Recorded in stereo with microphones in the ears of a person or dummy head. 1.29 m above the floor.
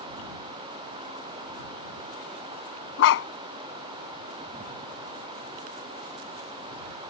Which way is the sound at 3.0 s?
70° left (ahead or behind).